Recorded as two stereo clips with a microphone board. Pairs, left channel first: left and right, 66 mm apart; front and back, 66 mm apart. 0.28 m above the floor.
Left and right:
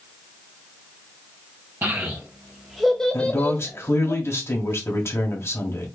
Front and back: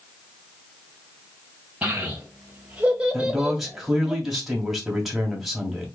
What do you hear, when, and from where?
1.8 s a child speaking: 115° right, 1.3 m; by 4.1 s 100° left, 1.4 m
3.1 s a man speaking: 95° left, 2.0 m